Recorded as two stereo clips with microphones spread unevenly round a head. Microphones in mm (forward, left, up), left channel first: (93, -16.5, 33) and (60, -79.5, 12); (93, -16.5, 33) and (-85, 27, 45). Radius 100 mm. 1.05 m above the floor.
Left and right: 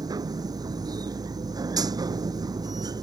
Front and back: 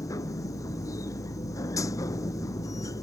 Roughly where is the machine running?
Right.